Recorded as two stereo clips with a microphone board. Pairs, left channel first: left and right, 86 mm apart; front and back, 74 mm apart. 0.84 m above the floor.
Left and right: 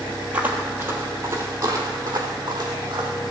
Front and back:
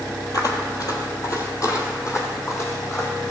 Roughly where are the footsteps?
Ahead.